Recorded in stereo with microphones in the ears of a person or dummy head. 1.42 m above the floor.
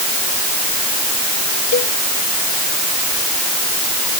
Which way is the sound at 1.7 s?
45° left (ahead or behind).